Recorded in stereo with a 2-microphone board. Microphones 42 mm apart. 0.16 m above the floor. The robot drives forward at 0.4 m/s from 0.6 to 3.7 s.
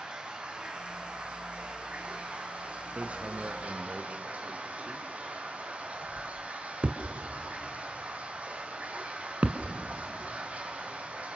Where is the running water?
25° right (ahead or behind), 4.5 m; by 11.4 s 35° right (ahead or behind), 3.5 m.